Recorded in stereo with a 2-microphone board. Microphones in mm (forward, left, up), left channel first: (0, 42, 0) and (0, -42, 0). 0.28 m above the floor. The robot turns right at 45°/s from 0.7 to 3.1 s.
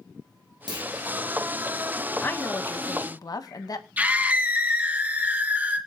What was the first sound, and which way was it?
A clunk, 65° right (ahead or behind).